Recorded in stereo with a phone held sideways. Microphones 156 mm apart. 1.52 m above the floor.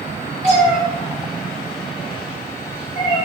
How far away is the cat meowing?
About 1.5 m.